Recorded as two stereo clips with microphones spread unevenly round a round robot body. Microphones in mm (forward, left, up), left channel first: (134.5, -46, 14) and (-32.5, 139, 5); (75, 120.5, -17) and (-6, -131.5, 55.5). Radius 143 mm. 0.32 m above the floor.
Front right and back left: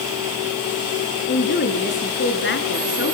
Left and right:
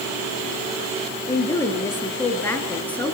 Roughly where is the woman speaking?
Ahead.